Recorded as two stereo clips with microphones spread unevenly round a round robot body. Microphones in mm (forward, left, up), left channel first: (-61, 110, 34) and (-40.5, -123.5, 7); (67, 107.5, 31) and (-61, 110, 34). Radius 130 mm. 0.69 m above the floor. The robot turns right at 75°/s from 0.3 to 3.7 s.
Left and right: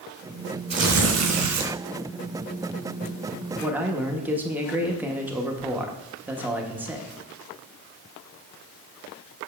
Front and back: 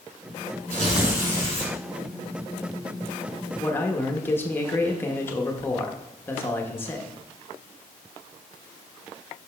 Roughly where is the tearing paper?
Behind right.